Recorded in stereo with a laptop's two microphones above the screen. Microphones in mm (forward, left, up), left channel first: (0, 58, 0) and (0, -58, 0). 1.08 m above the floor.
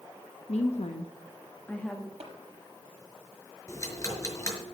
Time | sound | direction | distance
0.5 | a woman speaking | 80° left | 1.2 m
2.2 | tapping | 65° right (ahead or behind) | 6.5 m
3.7 | ticking | 30° left (ahead or behind) | 5.5 m